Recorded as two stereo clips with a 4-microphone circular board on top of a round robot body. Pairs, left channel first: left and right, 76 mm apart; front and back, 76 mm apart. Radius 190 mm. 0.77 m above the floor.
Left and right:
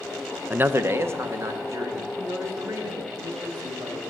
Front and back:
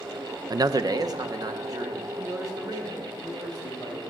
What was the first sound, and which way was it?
A man speaking, 155° right.